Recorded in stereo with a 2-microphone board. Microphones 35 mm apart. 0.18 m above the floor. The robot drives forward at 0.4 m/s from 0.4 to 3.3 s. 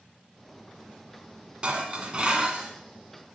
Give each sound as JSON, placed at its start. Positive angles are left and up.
{"t": 1.6, "sound": "dishes clattering", "side_deg": -30, "distance_m": 1.1}